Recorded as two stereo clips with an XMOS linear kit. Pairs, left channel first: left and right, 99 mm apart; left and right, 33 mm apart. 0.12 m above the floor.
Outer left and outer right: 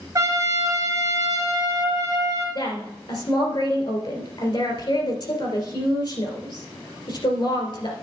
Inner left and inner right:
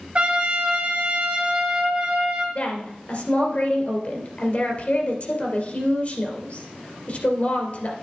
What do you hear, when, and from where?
0.1 s a trumpet: 35° right (ahead or behind), 1.8 m
2.5 s a woman speaking: 50° left (ahead or behind), 2.5 m